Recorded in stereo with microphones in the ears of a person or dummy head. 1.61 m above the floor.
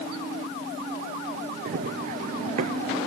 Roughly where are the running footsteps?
Right.